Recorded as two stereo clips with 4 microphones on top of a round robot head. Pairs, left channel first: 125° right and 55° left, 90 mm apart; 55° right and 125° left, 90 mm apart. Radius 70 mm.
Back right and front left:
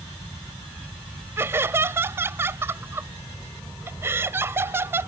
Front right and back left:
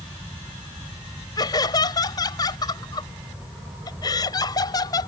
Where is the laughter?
10° right.